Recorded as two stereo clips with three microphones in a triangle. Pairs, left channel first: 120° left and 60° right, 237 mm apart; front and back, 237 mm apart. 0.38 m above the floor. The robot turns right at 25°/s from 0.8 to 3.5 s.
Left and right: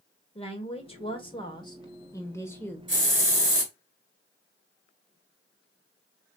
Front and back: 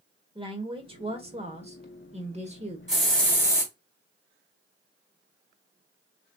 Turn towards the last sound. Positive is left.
turn(degrees=-80)